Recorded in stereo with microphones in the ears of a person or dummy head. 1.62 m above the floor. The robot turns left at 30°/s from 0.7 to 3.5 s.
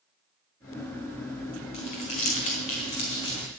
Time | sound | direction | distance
1.7 | crumpling | 25° left (ahead or behind) | 1.4 m